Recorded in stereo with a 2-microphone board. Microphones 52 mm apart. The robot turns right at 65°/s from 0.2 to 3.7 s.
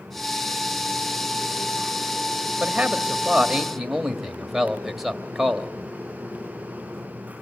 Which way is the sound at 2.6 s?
25° right (ahead or behind).